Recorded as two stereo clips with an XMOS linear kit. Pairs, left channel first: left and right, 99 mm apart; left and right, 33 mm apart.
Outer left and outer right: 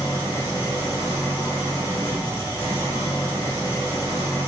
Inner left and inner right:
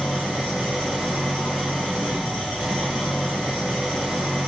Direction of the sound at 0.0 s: 20° right (ahead or behind).